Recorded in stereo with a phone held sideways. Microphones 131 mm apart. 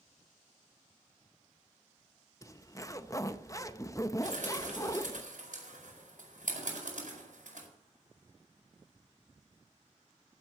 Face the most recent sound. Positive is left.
turn(degrees=-80)